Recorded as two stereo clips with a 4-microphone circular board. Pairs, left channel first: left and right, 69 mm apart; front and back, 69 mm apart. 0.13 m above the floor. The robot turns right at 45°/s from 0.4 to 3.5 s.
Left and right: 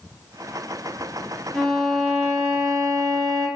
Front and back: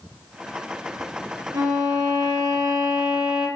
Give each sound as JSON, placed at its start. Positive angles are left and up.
{"t": 1.5, "sound": "a violin", "azimuth_deg": 175, "distance_m": 3.0}